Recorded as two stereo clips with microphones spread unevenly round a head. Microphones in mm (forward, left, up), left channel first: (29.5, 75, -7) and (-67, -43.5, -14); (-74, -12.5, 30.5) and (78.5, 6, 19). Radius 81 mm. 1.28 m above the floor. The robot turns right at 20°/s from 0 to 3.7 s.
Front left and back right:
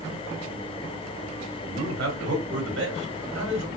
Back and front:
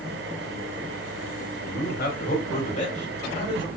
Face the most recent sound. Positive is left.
turn(degrees=-110)